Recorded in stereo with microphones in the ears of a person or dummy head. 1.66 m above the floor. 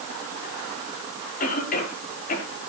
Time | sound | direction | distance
1.4 | a cough | 50° left (ahead or behind) | 5 m